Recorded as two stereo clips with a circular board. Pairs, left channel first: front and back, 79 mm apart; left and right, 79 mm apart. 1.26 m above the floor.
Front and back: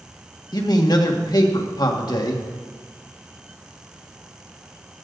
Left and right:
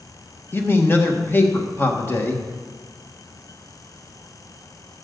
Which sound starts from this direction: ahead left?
A man speaking, at 0.5 s.